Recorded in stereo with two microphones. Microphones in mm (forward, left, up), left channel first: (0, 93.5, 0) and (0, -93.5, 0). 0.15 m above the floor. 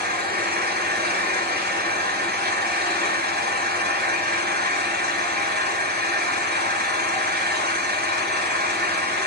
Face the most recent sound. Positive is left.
turn(degrees=-60)  # may be behind; listen again after turning